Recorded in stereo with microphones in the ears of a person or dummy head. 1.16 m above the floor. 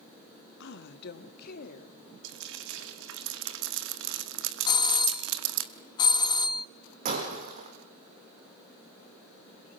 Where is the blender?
I don't hear a blender.